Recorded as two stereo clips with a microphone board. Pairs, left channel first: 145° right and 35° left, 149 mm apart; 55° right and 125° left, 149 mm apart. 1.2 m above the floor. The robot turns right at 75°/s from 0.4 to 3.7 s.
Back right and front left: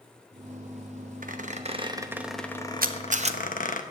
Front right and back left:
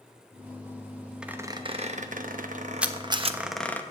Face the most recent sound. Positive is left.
turn(degrees=110)